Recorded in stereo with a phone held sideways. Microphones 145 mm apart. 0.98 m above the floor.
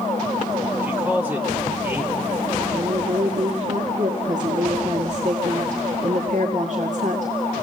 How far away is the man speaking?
About 3 m.